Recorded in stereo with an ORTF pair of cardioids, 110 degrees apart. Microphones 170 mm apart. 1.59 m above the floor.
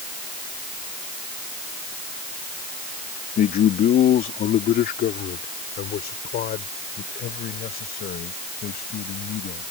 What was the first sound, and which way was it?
A man speaking, 55° left.